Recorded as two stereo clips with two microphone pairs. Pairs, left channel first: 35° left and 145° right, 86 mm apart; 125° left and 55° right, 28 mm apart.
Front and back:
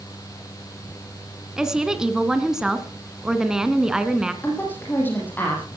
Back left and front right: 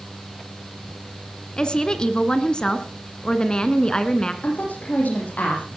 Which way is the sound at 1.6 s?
135° left.